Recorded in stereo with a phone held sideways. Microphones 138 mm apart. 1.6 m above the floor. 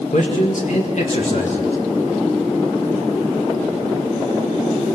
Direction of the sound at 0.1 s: 60° left (ahead or behind).